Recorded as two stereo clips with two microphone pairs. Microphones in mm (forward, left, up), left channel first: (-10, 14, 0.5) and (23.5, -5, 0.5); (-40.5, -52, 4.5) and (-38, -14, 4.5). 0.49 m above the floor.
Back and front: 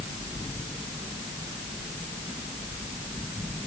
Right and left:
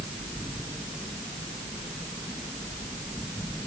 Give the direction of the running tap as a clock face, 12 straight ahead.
I don't hear a running tap.